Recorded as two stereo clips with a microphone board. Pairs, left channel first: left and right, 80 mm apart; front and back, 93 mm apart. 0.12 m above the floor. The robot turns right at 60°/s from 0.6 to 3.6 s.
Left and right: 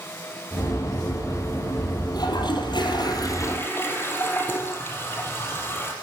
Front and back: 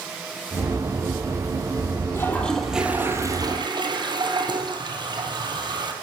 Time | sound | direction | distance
2.1 | a toilet flushing | 60° left | 3.5 m